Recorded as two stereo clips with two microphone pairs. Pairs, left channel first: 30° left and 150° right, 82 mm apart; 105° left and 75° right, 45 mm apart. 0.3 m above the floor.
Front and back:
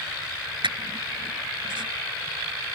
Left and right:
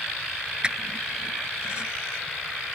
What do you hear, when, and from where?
0.6 s a squeak: 145° right